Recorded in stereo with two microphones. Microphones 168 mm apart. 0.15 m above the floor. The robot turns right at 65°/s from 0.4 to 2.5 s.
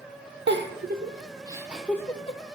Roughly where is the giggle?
Right.